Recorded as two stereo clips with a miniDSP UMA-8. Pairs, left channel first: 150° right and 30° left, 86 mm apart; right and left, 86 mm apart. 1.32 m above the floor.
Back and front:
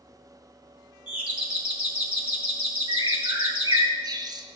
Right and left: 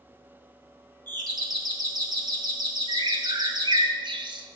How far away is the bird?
About 0.6 m.